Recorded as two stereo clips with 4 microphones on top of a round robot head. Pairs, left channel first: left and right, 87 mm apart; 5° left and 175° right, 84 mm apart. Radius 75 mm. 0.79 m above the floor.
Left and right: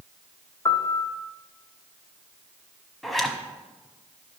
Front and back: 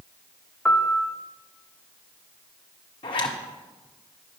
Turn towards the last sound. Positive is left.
turn(degrees=0)